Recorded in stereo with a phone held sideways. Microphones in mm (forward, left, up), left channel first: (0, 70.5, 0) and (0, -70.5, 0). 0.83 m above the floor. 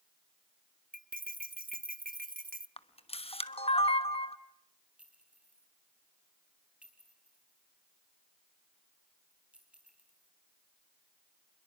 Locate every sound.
0.9 s cutlery clinking: 85° right, 0.9 m
2.8 s a camera shutter: 45° left (ahead or behind), 1.1 m
5.0 s a clink: 10° right (ahead or behind), 4 m